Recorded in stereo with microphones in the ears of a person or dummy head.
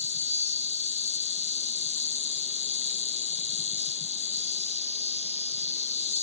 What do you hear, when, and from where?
0.0 s an insect: 35° left (ahead or behind)